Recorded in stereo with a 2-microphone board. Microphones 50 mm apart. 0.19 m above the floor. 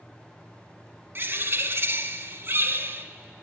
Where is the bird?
45° right (ahead or behind), 1.0 m.